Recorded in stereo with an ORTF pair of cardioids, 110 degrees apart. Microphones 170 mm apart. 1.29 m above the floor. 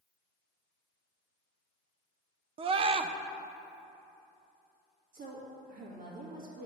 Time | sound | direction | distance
2.6 | a scream | 35° right | 0.5 m
5.1 | a woman speaking | 55° right | 2 m